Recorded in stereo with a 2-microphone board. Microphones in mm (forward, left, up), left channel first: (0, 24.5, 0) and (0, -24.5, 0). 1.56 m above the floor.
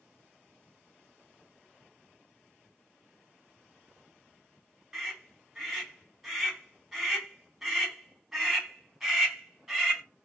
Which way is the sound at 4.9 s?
15° right (ahead or behind).